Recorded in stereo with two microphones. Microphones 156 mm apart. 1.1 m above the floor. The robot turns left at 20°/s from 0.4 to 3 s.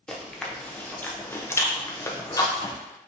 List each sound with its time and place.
0.1 s chewing: 5° left (ahead or behind), 0.6 m; by 2.8 s 25° left (ahead or behind), 0.6 m